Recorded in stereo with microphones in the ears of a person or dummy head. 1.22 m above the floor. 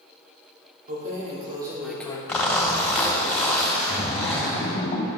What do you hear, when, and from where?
0.9 s keys jangling: 45° right (ahead or behind), 2 m; by 2.2 s 25° left (ahead or behind), 1.0 m
2.3 s a zipper: 10° left (ahead or behind), 2.0 m
3.9 s a splash: 35° left (ahead or behind), 0.9 m